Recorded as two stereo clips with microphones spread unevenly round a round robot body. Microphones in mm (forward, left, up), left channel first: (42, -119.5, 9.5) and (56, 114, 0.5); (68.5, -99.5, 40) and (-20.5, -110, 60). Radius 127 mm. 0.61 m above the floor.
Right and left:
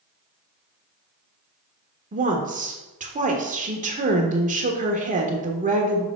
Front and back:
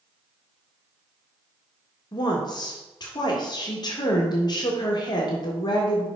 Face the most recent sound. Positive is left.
turn(degrees=35)